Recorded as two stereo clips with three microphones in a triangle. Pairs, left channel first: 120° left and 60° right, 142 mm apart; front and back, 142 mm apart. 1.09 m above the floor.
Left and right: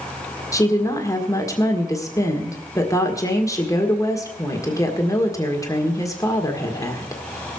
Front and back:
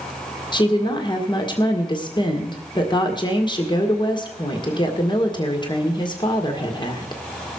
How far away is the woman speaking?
About 1.7 m.